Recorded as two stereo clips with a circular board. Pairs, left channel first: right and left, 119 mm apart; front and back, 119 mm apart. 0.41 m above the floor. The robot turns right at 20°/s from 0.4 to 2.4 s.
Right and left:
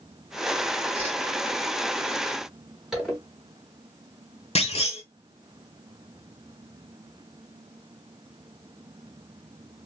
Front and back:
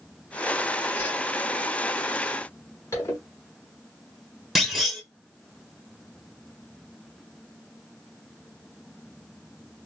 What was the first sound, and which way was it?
A whoosh, 70° left.